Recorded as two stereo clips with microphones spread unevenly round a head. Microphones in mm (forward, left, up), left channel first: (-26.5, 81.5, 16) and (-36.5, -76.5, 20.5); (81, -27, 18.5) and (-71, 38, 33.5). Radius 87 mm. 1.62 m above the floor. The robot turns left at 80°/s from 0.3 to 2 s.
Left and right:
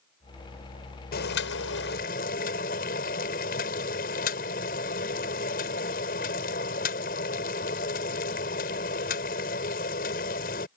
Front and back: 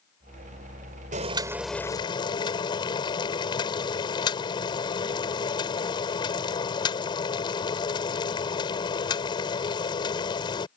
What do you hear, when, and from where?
1.1 s boiling: 115° left; by 10.7 s 40° left